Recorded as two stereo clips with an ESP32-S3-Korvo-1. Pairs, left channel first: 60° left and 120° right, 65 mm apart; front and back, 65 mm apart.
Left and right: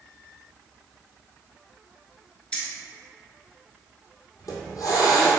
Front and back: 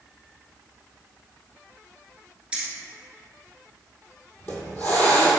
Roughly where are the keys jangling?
Behind left.